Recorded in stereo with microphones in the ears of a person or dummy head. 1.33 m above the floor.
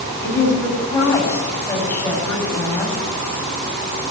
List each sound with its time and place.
0.2 s a woman speaking: 15° left (ahead or behind), 9.5 m